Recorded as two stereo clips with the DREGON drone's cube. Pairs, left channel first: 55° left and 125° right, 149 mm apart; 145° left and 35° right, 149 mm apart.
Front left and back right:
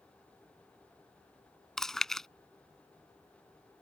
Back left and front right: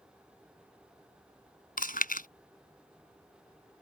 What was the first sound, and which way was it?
Chewing, 145° left.